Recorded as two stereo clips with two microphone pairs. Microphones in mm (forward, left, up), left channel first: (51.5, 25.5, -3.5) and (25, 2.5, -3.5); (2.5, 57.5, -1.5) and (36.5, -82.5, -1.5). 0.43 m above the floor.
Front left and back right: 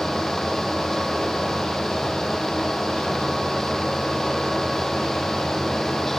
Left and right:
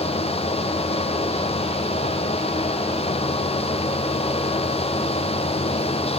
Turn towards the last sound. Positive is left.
No sound to turn to.